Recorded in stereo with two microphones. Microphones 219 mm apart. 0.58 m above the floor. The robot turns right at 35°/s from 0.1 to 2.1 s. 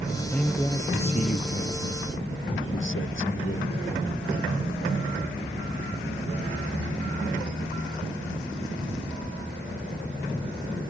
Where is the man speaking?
Straight ahead; by 3.7 s 65° left.